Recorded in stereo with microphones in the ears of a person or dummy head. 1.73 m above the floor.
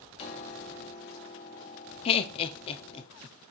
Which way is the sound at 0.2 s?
35° left (ahead or behind).